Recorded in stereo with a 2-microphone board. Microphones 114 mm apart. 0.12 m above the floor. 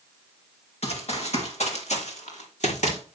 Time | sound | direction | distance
0.8 | running footsteps | 65° left (ahead or behind) | 4.5 m